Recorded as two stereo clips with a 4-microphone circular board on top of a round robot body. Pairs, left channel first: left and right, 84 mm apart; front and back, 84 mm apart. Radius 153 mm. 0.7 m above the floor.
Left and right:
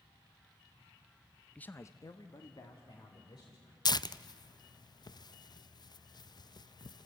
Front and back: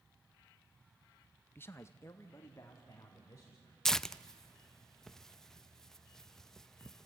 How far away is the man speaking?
About 0.7 m.